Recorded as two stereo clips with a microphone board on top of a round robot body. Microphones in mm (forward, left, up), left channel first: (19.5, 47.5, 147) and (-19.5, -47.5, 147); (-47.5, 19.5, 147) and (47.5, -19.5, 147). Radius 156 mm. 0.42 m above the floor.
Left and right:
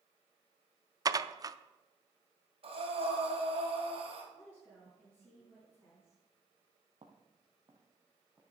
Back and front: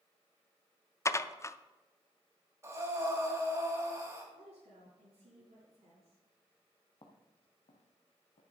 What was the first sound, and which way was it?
Dishes clattering, 150° right.